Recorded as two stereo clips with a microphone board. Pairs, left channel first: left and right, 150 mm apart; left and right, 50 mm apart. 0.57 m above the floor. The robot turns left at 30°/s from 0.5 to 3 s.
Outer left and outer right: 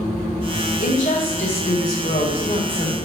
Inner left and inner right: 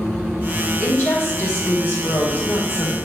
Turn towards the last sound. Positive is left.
turn(degrees=55)